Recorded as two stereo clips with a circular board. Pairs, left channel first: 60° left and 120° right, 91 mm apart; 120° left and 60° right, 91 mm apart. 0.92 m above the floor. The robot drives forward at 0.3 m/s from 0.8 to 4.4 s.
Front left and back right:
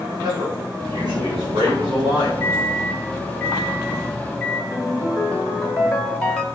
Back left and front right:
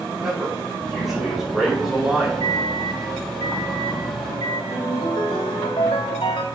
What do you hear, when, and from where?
0.2 s a man speaking: 145° right, 5 m
2.4 s a microwave: 125° left, 1.1 m; by 4.6 s 145° left, 1.5 m
4.7 s a ringtone: 135° left, 1.4 m